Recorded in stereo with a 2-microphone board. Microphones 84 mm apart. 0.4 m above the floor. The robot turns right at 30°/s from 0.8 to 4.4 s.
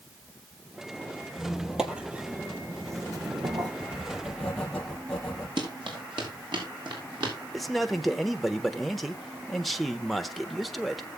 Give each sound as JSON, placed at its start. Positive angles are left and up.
{"t": 1.4, "sound": "a squeak", "azimuth_deg": 170, "distance_m": 1.4}
{"t": 3.8, "sound": "writing", "side_deg": -10, "distance_m": 3.5}
{"t": 5.6, "sound": "running footsteps", "side_deg": -70, "distance_m": 5.0}
{"t": 7.5, "sound": "a man speaking", "side_deg": 0, "distance_m": 1.0}